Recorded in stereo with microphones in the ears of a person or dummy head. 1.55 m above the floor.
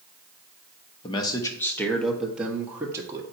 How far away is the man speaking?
About 1.1 m.